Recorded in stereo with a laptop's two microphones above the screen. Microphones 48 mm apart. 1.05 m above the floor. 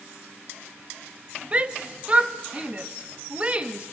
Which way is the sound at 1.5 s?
25° right (ahead or behind).